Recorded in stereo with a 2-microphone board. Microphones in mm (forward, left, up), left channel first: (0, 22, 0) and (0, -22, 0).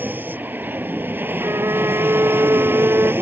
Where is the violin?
80° right.